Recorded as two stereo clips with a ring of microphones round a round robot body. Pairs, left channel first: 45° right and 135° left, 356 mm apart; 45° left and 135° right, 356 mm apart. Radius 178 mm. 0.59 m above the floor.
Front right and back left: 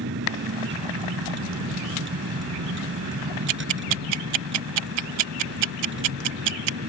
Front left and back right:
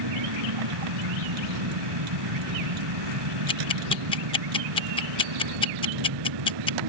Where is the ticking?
120° left.